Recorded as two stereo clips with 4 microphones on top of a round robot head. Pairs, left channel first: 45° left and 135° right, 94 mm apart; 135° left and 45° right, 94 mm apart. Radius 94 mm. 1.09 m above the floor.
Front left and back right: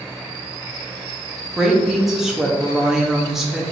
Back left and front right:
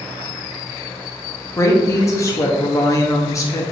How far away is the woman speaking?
About 0.7 m.